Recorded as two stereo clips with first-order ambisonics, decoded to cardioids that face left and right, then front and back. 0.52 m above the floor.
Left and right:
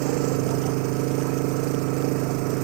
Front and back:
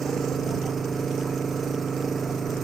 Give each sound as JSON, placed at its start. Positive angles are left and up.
{"t": 0.0, "sound": "an engine running", "azimuth_deg": -105}